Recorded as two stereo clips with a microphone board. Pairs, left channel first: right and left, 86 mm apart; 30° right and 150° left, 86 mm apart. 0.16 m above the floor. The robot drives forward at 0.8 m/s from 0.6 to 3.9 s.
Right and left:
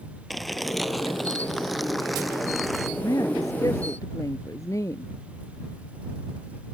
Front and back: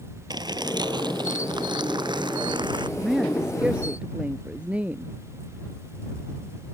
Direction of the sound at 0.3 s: Straight behind.